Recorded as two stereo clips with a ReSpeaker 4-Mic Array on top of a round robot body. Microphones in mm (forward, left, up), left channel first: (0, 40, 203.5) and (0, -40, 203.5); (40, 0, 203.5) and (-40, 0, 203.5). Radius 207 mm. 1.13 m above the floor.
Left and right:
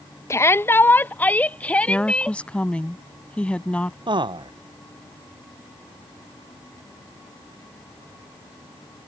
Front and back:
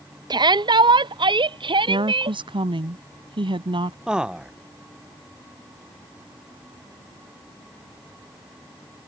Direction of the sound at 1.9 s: 170° left.